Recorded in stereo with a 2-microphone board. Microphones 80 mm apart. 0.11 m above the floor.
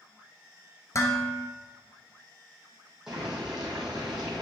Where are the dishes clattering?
40° left (ahead or behind), 1.2 m.